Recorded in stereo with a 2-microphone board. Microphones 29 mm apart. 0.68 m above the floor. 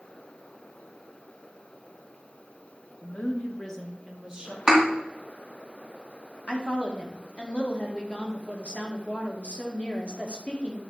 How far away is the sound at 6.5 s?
About 1.5 m.